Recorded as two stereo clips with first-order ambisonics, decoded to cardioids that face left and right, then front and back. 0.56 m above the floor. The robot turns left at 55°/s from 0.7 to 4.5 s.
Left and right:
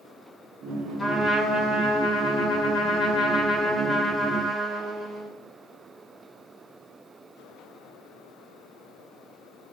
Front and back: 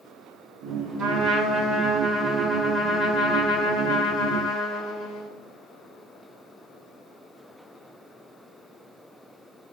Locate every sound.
1.0 s a trumpet: 160° left, 2 m; by 5.3 s 30° right, 2 m